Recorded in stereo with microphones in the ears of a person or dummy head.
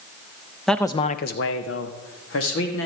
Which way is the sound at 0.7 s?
Centre (ahead or behind).